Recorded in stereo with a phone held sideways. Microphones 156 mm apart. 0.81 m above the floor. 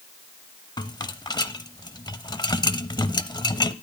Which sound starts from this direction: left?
A rattle, at 0.8 s.